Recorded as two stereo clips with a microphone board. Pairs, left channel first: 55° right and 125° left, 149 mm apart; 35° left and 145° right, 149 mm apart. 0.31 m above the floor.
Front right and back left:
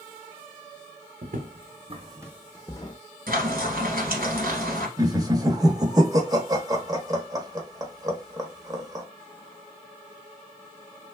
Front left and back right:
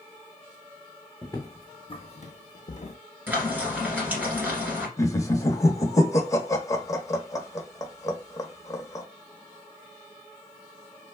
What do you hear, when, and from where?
1.2 s footsteps: 105° left, 1.1 m; by 3.0 s 5° right, 0.7 m
3.3 s frying: 135° left, 1.7 m
5.0 s laughter: 85° left, 1.0 m